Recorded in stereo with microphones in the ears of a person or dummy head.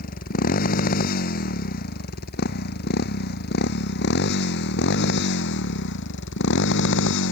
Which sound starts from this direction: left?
A motorcycle, at 0.0 s.